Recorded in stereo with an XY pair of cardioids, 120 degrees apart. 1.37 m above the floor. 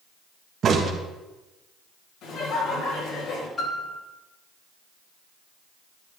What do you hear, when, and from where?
0.6 s a crack: 50° right, 1.7 m
2.2 s laughter: 70° left, 5 m
3.6 s a piano: 30° left, 3.5 m